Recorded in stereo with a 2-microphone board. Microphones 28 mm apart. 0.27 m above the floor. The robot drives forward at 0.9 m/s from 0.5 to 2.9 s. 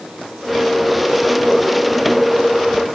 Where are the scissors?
No scissors in this recording.